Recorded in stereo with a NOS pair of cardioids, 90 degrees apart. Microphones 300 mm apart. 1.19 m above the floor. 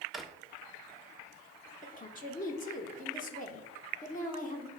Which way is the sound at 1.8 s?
30° left.